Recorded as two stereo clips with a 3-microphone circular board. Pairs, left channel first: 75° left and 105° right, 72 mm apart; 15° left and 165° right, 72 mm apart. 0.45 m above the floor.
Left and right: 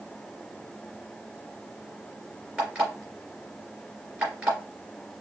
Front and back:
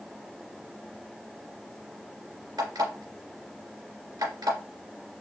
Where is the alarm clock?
Straight behind, 2.5 m.